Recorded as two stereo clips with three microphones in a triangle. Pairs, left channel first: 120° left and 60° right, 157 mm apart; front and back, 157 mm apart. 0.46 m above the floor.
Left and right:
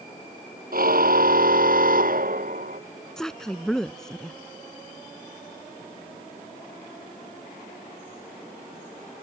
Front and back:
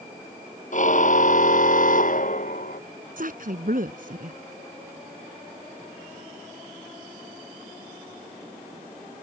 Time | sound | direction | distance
0.7 | a car horn | 35° right | ?
3.2 | a woman speaking | 155° right | ?